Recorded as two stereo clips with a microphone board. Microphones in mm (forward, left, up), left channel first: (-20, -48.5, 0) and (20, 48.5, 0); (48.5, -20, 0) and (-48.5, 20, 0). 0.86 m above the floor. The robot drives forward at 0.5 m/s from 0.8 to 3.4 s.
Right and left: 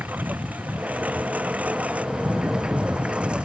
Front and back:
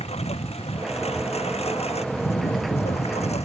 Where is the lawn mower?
5° right; by 3.4 s 15° right.